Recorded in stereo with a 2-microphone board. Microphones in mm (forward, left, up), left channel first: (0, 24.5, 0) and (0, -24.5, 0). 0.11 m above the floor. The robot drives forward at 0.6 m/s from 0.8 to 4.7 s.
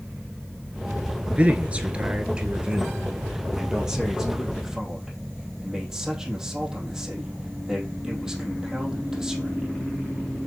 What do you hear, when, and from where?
1.3 s a man speaking: 30° right (ahead or behind), 1.2 m; by 9.7 s 10° right (ahead or behind), 2.5 m